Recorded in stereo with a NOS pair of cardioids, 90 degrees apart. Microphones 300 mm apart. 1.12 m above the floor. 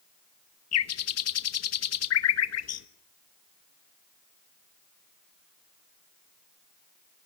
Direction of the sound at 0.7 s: 55° left.